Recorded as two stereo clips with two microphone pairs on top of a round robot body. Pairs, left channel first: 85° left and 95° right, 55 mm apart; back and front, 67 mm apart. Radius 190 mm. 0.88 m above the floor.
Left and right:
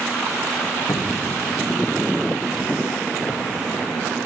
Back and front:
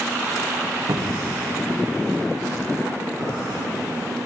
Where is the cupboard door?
50° left, 0.5 m.